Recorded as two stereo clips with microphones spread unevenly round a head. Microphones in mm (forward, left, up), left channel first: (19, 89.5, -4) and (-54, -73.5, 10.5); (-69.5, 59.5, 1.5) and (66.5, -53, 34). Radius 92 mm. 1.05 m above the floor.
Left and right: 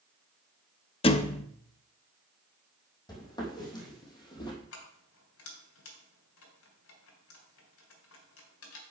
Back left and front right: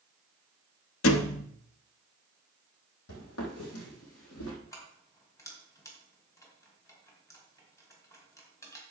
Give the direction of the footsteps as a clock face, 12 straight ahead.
7 o'clock.